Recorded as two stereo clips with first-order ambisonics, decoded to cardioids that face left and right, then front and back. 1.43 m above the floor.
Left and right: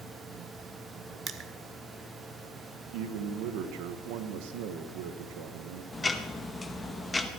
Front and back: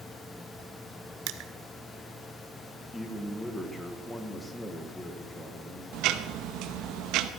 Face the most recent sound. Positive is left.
turn(degrees=165)